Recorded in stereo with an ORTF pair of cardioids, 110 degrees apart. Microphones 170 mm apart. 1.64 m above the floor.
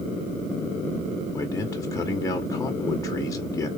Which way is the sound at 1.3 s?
20° left.